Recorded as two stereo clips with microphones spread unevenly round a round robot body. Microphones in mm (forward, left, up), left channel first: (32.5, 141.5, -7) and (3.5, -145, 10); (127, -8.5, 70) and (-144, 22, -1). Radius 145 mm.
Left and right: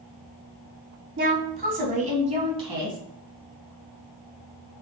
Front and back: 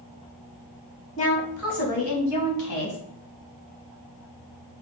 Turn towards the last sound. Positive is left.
turn(degrees=-20)